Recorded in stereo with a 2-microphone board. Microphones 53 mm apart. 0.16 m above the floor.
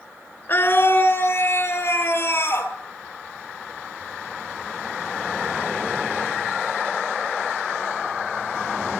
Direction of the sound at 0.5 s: 40° left (ahead or behind).